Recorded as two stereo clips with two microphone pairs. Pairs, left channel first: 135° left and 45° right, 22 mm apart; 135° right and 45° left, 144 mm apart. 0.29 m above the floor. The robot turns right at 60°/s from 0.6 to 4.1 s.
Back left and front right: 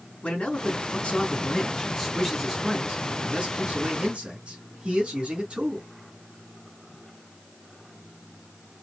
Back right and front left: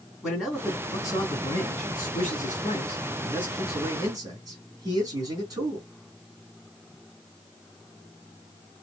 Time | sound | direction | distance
0.2 | a man speaking | 135° left | 3 m